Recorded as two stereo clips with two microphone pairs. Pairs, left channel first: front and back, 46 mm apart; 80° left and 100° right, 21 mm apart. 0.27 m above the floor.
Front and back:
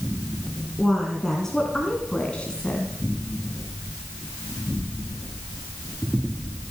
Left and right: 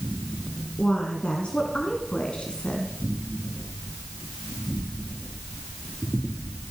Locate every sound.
0.8 s a woman speaking: 85° left, 2.5 m; by 2.9 s 60° left, 2 m